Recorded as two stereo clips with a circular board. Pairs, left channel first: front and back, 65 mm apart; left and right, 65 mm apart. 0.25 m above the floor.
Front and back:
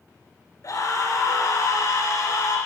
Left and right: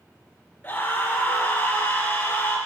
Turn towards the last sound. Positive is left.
turn(degrees=25)